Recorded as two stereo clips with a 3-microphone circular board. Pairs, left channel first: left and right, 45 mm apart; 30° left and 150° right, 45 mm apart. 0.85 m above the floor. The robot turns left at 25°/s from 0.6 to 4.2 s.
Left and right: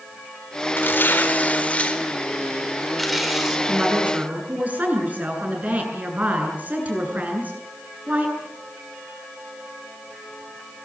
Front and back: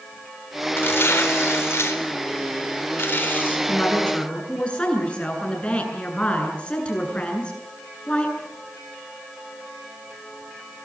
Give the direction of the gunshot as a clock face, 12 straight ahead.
I don't hear a gunshot.